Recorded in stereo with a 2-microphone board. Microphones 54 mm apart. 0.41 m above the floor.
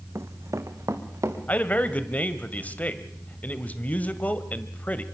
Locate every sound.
0.1 s running footsteps: 60° right (ahead or behind), 1.2 m; by 1.4 s 75° right (ahead or behind), 3 m
1.5 s a man speaking: 30° left (ahead or behind), 1.6 m